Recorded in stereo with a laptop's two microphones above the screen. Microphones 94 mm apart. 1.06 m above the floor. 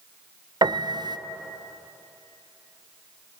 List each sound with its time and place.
0.6 s a piano: 50° right (ahead or behind), 0.7 m